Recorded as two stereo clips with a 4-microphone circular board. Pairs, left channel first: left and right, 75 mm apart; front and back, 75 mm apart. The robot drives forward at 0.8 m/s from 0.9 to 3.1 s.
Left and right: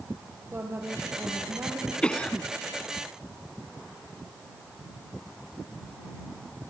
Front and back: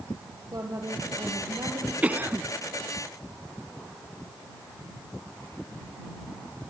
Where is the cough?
140° left, 1.1 m; by 2.5 s 160° left, 1.3 m.